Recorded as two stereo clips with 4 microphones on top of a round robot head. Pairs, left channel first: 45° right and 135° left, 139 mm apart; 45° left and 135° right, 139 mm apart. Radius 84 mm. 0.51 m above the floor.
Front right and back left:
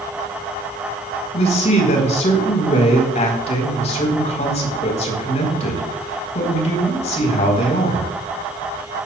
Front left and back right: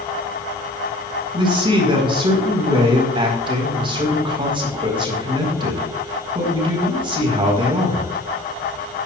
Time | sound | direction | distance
1.3 | a man speaking | 80° right | 4.5 m